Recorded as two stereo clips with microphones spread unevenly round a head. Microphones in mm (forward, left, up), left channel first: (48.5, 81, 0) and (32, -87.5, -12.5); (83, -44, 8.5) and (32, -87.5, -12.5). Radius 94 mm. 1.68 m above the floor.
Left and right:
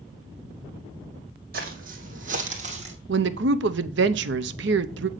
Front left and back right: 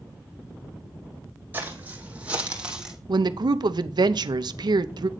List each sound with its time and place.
1.5 s footsteps: 70° right, 3 m; by 3.0 s 50° right, 3 m
3.1 s a woman speaking: 120° right, 0.7 m